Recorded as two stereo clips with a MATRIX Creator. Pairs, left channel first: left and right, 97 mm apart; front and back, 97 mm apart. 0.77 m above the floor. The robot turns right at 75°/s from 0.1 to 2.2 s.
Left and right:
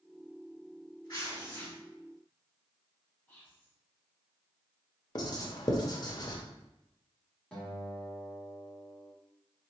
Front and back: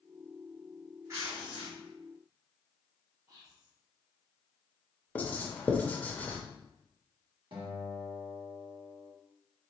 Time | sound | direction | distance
1.1 | tearing paper | 125° left | 1.9 m
3.3 | whispering | 155° left | 0.9 m
5.2 | writing | 70° left | 0.7 m
7.5 | a guitar | 170° left | 1.2 m